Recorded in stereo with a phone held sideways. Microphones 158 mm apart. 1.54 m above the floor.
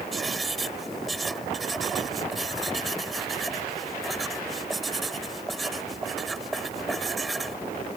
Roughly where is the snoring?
I don't hear snoring.